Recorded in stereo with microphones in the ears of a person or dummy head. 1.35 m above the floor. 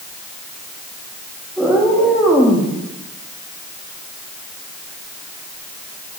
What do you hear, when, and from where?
1.6 s a cat meowing: 5° right (ahead or behind), 1.2 m